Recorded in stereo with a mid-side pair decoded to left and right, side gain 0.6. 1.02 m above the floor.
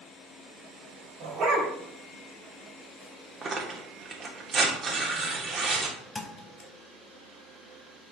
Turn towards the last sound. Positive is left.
turn(degrees=25)